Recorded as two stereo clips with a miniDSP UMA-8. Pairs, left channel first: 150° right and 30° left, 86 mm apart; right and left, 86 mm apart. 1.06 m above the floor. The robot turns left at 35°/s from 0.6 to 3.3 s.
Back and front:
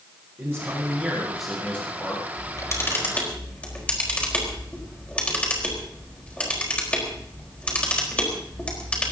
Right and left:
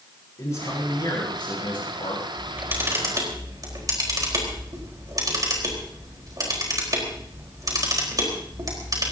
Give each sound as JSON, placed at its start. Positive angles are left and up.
{"t": 0.4, "sound": "a man speaking", "azimuth_deg": -30, "distance_m": 10.0}
{"t": 2.4, "sound": "a camera shutter", "azimuth_deg": 165, "distance_m": 4.5}